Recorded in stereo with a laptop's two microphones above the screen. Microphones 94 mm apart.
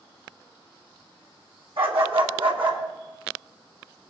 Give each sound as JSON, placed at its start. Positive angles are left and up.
{"t": 1.8, "sound": "a dog barking", "side_deg": -75, "distance_m": 2.5}